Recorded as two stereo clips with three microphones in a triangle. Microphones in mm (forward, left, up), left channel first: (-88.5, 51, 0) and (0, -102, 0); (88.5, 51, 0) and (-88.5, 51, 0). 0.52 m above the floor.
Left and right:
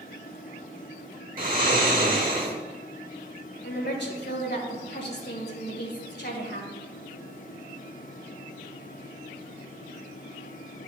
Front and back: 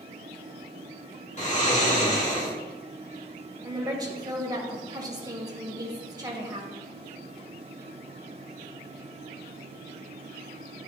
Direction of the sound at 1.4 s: 40° right.